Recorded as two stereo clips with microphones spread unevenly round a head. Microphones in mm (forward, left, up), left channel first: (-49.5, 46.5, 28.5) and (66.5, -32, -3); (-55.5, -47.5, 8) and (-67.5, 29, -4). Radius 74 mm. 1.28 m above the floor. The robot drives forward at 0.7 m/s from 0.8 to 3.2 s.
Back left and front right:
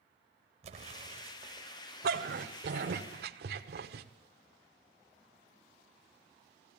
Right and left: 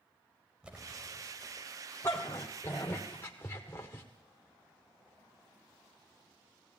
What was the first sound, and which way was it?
An explosion, 15° left.